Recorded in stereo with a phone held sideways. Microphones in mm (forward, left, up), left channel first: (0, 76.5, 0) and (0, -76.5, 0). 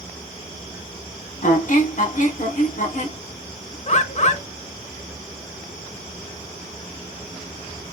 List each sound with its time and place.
1.4 s a squeak: 55° left (ahead or behind), 1.4 m
3.9 s a bird: 50° left (ahead or behind), 0.6 m